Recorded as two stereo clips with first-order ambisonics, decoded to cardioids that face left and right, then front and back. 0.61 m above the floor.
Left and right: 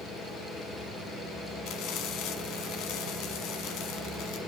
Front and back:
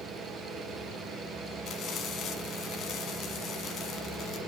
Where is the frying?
55° left, 1.3 m.